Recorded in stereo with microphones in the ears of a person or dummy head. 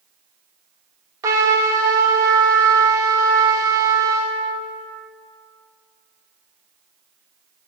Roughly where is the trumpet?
Centre.